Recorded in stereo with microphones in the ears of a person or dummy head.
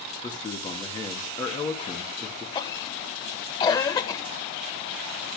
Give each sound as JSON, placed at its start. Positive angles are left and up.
{"t": 0.2, "sound": "a man speaking", "side_deg": 20, "distance_m": 3.0}
{"t": 2.5, "sound": "a cough", "side_deg": 25, "distance_m": 1.7}